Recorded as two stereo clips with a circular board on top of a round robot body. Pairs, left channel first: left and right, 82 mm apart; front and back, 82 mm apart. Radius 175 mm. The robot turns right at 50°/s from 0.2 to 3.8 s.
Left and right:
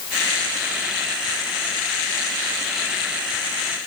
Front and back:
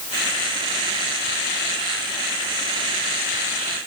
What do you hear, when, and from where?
Only background noise.